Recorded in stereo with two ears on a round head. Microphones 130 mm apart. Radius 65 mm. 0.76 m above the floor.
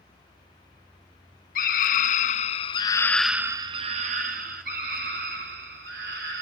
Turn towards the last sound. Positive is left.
turn(degrees=-75)  # may be behind; listen again after turning